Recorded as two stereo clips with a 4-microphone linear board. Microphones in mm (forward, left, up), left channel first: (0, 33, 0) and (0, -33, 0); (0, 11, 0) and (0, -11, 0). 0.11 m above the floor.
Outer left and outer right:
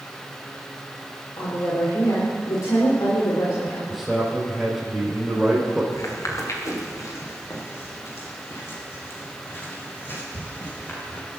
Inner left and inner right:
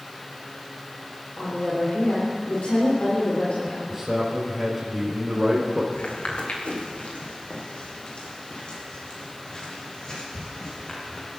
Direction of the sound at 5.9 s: 60° left (ahead or behind).